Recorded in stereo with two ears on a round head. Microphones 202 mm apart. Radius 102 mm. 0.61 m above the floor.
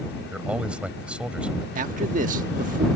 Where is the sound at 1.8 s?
35° right (ahead or behind).